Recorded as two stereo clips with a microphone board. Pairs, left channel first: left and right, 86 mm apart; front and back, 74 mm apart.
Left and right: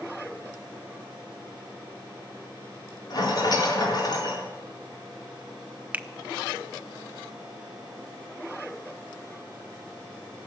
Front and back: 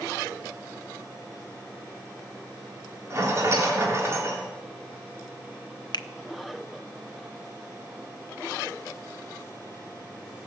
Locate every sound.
3.1 s a rattle: 125° left, 3.5 m
5.9 s a finger snap: 20° right, 0.6 m